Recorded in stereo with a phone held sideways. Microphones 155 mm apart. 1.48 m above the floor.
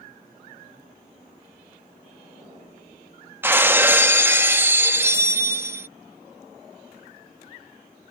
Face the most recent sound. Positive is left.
turn(degrees=-15)  # may be behind; listen again after turning